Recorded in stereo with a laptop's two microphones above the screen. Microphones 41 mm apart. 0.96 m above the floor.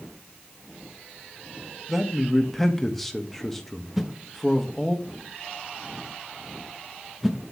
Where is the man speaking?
5° left (ahead or behind), 1.2 m.